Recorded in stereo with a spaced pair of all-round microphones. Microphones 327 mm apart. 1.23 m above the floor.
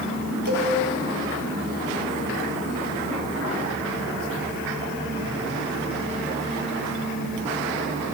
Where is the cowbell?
80° right, 1.9 m.